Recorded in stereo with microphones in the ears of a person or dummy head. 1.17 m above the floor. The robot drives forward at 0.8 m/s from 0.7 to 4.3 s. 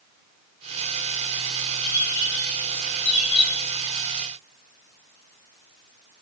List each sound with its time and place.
1.8 s a bird: 50° left (ahead or behind), 1.6 m; by 3.7 s 25° left (ahead or behind), 3 m